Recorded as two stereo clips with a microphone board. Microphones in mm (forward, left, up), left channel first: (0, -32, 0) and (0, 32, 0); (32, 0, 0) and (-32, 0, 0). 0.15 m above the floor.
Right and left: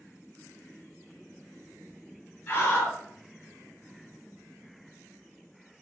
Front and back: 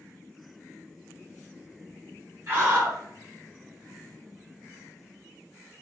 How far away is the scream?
About 2 m.